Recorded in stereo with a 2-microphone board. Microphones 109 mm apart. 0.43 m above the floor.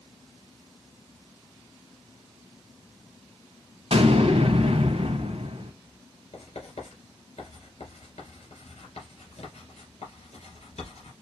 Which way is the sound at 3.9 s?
70° right (ahead or behind).